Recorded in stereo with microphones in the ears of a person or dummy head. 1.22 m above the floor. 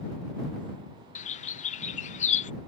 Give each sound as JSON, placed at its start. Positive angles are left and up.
{"t": 1.1, "sound": "a bird", "side_deg": 40}